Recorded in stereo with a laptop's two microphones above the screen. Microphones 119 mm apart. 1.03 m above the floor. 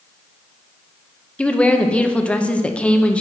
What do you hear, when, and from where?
1.4 s a woman speaking: 10° left (ahead or behind), 0.7 m